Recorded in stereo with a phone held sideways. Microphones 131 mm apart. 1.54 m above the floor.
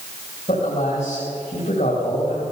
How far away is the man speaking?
About 3.5 m.